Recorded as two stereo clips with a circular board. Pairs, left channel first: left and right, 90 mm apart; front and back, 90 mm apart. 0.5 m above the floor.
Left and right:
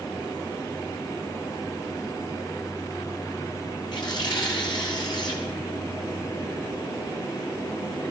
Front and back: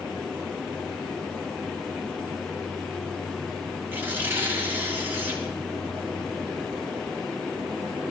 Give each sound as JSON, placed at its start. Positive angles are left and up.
{"t": 3.9, "sound": "tearing paper", "azimuth_deg": 115, "distance_m": 3.0}